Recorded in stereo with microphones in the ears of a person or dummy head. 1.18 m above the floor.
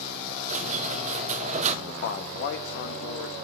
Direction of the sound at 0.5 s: 40° right (ahead or behind).